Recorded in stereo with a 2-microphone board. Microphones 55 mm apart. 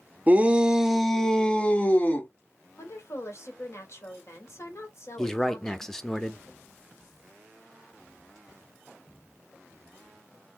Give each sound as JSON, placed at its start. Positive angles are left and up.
{"t": 0.3, "sound": "a shout", "side_deg": -30, "distance_m": 0.7}
{"t": 2.8, "sound": "a woman speaking", "side_deg": 60, "distance_m": 2.0}
{"t": 5.2, "sound": "a man speaking", "side_deg": 10, "distance_m": 0.8}